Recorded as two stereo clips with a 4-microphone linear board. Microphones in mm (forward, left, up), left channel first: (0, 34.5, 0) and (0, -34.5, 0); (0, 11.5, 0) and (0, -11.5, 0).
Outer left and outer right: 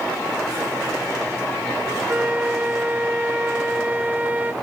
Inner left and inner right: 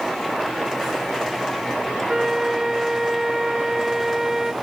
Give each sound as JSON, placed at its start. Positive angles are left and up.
{"t": 2.1, "sound": "a flute", "side_deg": -25, "distance_m": 0.7}